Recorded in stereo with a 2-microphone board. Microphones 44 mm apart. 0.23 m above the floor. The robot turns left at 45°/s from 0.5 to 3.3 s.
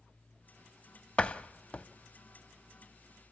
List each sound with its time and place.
1.2 s a door slam: 30° left (ahead or behind), 0.7 m